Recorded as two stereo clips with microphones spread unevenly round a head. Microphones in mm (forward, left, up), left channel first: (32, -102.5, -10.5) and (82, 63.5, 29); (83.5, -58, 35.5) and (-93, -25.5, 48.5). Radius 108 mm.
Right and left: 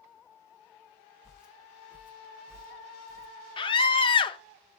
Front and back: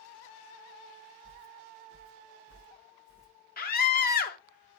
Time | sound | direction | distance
1.2 | footsteps | 10° right | 4 m
3.6 | a scream | 45° right | 2 m